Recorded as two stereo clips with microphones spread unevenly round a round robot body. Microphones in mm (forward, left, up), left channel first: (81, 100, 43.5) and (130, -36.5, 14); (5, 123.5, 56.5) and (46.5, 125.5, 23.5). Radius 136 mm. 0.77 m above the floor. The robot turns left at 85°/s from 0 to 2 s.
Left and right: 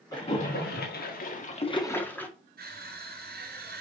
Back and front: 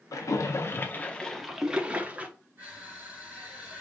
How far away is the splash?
About 2 m.